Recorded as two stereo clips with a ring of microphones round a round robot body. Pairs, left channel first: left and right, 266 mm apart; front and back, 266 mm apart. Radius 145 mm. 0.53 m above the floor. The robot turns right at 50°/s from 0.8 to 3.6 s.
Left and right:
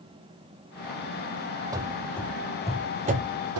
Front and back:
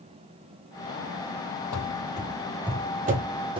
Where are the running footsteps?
15° right, 0.8 m; by 3.6 s 110° right, 0.8 m.